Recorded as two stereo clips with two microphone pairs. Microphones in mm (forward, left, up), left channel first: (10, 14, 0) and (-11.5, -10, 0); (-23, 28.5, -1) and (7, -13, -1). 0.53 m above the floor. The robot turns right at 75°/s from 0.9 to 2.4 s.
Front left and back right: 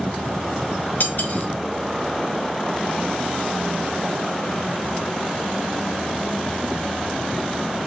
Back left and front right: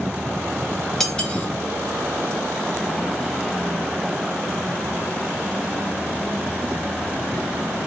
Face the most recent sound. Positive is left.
turn(degrees=150)